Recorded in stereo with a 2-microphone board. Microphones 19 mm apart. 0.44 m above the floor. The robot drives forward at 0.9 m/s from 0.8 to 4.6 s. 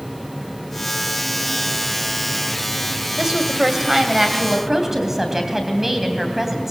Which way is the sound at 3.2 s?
25° right (ahead or behind).